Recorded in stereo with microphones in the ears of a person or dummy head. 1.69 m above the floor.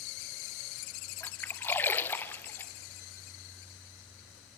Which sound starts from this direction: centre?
A splash, at 1.2 s.